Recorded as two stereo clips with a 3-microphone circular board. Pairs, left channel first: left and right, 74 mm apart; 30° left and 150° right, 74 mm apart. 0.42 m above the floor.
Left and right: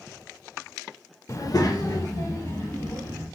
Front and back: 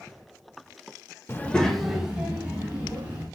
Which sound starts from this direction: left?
A child speaking, at 1.3 s.